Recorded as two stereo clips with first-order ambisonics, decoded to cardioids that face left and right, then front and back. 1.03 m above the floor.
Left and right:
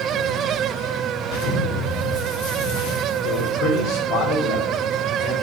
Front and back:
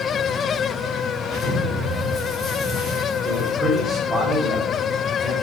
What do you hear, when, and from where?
1.2 s an explosion: 80° left, 3.5 m
3.2 s a man speaking: 90° left, 3.5 m